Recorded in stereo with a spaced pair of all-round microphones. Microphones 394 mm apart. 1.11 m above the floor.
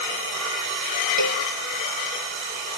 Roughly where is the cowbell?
Right.